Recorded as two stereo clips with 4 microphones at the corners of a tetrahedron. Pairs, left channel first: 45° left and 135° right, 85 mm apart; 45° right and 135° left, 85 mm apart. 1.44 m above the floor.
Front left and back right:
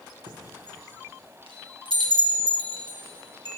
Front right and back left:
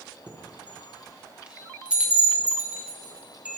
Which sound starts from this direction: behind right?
A chime, at 0.3 s.